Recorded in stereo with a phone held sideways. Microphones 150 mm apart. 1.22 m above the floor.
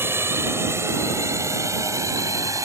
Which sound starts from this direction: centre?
A drone, at 0.0 s.